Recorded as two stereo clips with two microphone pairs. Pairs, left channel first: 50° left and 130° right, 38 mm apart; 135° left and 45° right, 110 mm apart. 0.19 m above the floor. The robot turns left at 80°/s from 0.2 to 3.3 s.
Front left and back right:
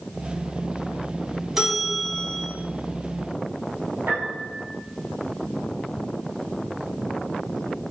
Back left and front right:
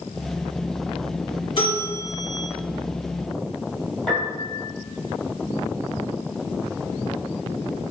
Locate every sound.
1.6 s a bell: 160° left, 1.7 m; by 2.5 s 90° left, 1.7 m
4.1 s a piano: 135° right, 1.9 m